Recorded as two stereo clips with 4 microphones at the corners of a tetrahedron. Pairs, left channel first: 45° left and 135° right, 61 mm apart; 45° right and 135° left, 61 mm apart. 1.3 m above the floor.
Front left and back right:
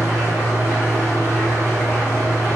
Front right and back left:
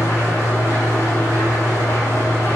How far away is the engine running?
About 1.6 m.